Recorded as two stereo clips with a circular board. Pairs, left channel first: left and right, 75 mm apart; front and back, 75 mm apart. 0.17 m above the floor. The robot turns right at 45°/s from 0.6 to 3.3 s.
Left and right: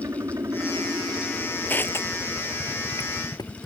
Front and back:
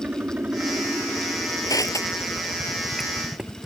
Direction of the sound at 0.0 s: 115° right.